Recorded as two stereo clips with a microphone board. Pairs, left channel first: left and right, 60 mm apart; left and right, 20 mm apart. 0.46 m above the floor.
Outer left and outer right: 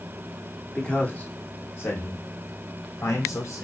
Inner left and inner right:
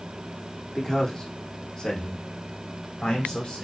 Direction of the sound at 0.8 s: 10° left (ahead or behind).